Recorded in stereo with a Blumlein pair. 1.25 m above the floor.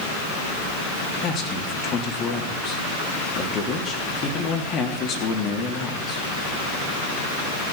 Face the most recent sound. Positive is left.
turn(degrees=30)